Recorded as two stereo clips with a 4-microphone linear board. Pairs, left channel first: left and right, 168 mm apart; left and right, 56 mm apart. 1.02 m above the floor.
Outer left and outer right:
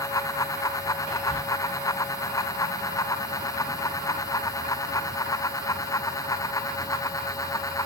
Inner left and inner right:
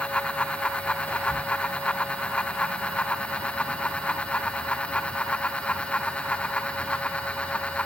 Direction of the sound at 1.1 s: 40° left (ahead or behind).